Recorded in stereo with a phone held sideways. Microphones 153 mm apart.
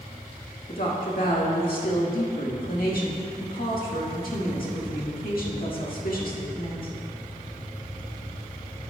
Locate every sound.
0.7 s a woman speaking: 75° left (ahead or behind), 1.7 m